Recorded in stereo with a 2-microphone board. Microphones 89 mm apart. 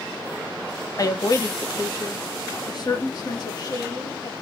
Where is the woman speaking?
40° left (ahead or behind), 1.0 m; by 4.3 s 50° left (ahead or behind), 4.5 m.